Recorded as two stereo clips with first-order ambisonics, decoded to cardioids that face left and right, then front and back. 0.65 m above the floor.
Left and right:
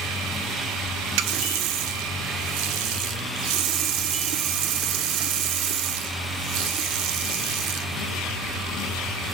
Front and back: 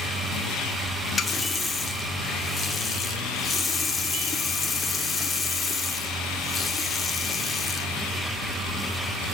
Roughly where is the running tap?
Right.